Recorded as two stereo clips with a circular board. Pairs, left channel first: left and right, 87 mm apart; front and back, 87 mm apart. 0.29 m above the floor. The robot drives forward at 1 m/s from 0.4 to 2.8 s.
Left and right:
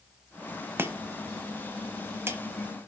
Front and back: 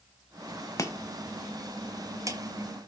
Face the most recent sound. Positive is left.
turn(degrees=-155)